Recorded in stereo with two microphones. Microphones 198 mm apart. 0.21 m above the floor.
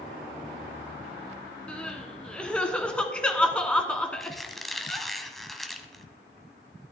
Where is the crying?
5° left (ahead or behind), 1.2 m.